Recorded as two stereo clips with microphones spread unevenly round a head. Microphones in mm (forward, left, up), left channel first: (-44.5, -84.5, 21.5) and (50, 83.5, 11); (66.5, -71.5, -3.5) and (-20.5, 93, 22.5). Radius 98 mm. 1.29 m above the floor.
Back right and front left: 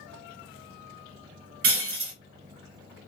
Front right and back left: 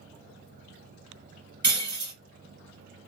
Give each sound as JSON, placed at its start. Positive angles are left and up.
{"t": 1.6, "sound": "breaking glass", "azimuth_deg": 65, "distance_m": 1.8}